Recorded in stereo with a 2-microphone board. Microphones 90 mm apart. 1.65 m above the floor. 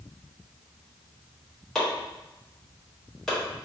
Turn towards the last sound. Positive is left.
turn(degrees=5)  # may be behind; listen again after turning